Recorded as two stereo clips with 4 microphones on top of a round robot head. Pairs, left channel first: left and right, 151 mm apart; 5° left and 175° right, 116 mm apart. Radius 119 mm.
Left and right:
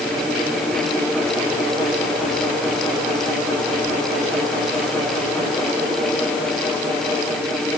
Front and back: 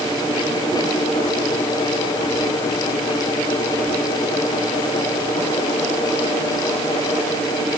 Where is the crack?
No crack in this recording.